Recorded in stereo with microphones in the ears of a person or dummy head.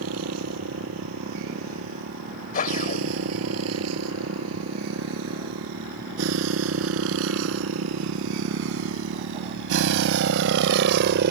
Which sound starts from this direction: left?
A whoosh, at 2.5 s.